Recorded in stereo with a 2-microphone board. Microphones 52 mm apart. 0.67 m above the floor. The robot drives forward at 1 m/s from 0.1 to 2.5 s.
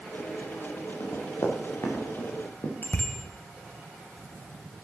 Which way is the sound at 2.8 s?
45° left (ahead or behind).